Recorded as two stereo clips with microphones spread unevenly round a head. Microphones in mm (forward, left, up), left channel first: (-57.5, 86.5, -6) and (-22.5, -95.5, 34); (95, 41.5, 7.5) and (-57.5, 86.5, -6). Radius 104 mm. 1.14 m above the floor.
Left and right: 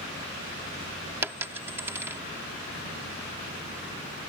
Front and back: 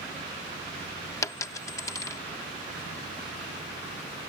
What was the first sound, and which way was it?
A dropped coin, 45° right.